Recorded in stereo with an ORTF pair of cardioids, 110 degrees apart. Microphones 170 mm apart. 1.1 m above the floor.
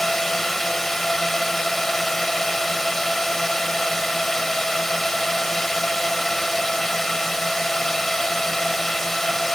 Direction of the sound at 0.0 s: Straight ahead.